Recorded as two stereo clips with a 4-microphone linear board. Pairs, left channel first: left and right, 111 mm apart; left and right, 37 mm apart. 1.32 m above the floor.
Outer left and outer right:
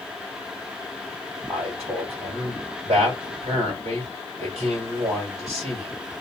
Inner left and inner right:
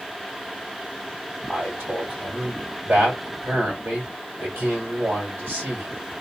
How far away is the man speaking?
About 1.9 m.